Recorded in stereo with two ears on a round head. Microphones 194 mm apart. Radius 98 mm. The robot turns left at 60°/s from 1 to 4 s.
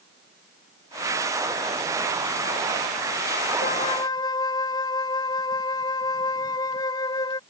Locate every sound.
3.6 s a flute: 40° left (ahead or behind); by 7.4 s 20° left (ahead or behind)